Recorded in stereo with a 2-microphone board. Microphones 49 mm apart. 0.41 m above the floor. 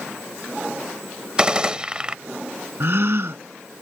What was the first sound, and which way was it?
A gunshot, 20° right (ahead or behind).